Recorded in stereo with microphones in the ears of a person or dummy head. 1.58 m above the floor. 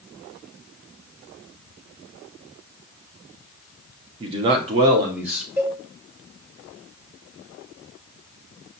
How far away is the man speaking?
About 0.6 m.